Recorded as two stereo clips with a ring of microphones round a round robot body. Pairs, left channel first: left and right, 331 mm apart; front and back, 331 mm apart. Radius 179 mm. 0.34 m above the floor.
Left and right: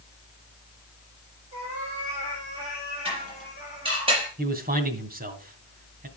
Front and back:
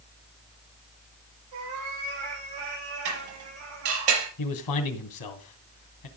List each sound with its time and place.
1.5 s a cat meowing: 165° right, 8.5 m
3.0 s dishes clattering: 165° right, 5.5 m
4.4 s a man speaking: 30° right, 2.5 m